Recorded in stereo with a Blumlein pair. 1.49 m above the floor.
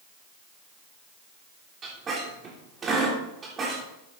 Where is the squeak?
20° right, 3.5 m.